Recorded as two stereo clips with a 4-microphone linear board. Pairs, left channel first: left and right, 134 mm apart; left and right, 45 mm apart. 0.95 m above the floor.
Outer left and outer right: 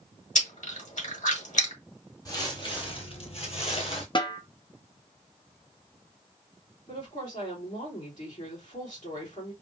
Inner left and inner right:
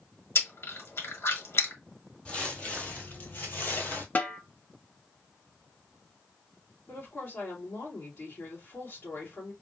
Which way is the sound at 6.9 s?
65° left (ahead or behind).